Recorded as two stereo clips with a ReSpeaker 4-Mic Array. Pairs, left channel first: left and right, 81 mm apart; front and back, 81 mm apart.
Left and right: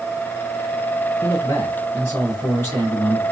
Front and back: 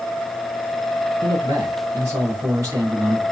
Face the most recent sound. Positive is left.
turn(degrees=145)